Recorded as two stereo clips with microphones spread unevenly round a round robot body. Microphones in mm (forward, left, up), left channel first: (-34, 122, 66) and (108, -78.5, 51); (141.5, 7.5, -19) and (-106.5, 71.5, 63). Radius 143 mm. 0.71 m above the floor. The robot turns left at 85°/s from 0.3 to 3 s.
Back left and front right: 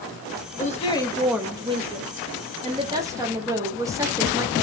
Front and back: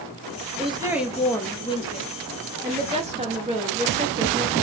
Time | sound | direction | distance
0.6 | a woman speaking | 90° left | 0.9 m